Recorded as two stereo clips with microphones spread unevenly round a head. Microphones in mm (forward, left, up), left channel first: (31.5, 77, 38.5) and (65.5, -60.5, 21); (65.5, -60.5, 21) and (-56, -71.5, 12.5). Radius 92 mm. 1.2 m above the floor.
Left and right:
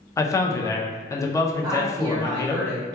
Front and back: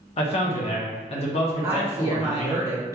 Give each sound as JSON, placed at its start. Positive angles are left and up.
{"t": 0.2, "sound": "a man speaking", "azimuth_deg": 35, "distance_m": 0.6}
{"t": 1.6, "sound": "a woman speaking", "azimuth_deg": -120, "distance_m": 0.5}